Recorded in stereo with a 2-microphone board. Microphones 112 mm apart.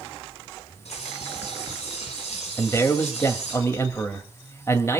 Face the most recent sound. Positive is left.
turn(degrees=25)  # may be behind; listen again after turning